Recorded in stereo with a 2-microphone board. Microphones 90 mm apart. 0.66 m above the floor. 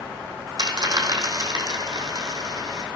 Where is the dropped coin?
50° right (ahead or behind), 2.5 m.